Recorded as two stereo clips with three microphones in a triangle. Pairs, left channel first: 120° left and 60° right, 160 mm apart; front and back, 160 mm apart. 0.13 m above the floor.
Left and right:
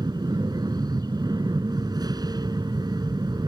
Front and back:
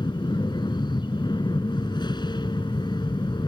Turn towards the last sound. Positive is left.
turn(degrees=-25)